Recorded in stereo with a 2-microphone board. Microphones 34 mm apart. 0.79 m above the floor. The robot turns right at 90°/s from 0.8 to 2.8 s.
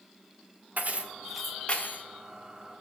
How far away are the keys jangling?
About 1.0 m.